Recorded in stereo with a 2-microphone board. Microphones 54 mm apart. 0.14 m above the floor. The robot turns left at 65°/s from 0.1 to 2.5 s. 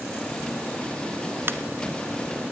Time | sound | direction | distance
1.5 | a ringtone | 45° right (ahead or behind) | 1.0 m